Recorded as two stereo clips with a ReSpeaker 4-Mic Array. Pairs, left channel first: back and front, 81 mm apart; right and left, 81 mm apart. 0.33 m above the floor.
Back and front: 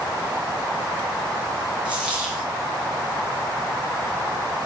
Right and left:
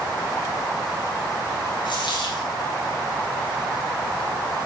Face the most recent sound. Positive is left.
turn(degrees=-75)